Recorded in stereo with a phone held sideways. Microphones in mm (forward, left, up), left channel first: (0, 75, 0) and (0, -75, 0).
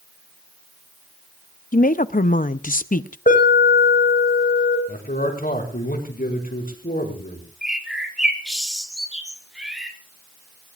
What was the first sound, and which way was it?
A woman speaking, 65° left (ahead or behind).